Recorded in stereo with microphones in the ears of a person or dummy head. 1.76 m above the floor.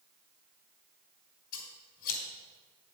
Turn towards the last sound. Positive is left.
turn(degrees=50)  # may be behind; listen again after turning